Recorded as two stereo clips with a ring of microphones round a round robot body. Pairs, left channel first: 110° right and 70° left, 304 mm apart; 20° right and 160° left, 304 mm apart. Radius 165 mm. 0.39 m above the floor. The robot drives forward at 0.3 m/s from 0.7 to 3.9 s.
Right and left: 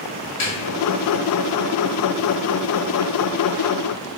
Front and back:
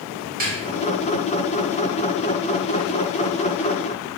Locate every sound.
0.4 s a snare drum: 140° right, 1.4 m